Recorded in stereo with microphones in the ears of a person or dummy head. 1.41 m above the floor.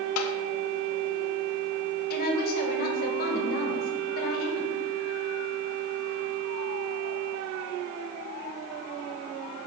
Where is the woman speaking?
50° left (ahead or behind), 1.7 m.